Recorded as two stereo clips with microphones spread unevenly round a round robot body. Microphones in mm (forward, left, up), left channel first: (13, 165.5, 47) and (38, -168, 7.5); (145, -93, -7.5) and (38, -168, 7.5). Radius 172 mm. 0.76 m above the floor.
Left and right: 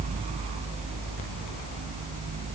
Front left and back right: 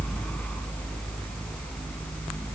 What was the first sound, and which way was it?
Only background noise.